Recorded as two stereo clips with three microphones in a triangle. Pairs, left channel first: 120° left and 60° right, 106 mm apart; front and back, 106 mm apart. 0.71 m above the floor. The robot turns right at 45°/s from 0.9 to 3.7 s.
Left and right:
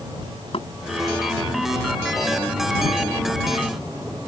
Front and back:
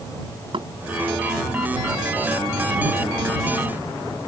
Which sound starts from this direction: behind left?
Knocking, at 0.5 s.